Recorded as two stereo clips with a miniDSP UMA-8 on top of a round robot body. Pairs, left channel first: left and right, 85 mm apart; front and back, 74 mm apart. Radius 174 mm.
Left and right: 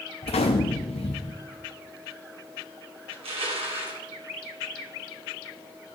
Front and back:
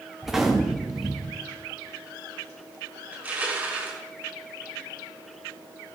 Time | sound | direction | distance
0.2 | a gunshot | 95° left | 0.5 m
3.1 | crushing | 110° right | 2 m